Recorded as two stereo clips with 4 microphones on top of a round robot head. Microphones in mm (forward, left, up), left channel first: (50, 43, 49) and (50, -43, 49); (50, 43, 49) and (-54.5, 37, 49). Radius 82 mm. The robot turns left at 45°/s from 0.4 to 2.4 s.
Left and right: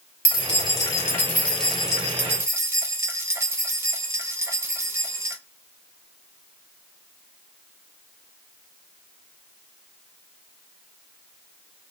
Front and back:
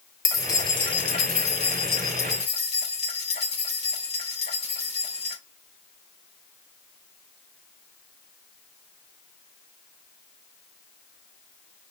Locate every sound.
0.2 s keys jangling: 60° left, 2.5 m; by 5.4 s 30° right, 2.5 m